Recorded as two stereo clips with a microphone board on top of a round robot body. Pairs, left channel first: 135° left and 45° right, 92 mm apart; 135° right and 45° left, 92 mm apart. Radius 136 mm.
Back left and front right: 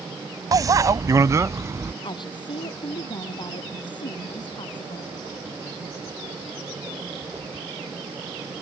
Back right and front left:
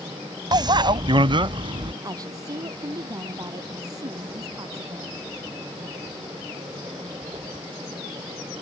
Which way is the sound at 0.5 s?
5° left.